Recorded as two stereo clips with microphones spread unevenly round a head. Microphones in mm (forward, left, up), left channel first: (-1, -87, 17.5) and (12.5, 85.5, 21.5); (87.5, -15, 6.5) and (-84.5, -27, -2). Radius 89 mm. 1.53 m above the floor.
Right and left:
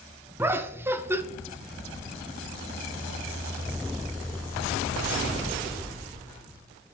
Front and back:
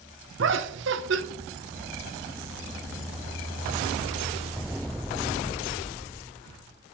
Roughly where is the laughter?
Behind.